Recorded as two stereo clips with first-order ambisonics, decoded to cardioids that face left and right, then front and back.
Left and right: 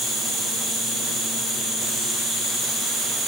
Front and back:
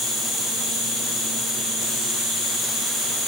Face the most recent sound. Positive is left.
turn(degrees=-15)